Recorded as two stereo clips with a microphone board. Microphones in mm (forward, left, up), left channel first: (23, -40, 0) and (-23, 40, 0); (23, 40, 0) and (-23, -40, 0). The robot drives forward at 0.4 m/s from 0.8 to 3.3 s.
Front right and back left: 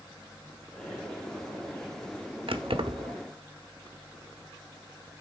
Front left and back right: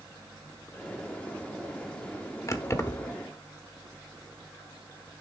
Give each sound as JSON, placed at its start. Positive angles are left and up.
{"t": 2.5, "sound": "keys jangling", "azimuth_deg": 115, "distance_m": 1.0}